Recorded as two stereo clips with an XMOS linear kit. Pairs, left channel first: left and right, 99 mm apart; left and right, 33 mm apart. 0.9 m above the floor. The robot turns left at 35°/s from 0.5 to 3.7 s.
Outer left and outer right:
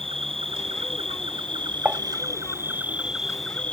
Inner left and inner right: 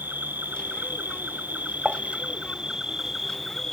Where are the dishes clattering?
15° right (ahead or behind); by 2.0 s 20° right (ahead or behind).